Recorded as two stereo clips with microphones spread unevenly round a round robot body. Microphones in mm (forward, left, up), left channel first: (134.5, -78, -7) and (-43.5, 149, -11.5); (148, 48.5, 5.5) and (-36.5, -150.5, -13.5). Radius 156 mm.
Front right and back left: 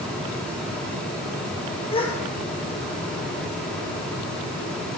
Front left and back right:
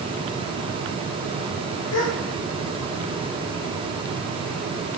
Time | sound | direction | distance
1.9 | a gasp | 20° left | 2 m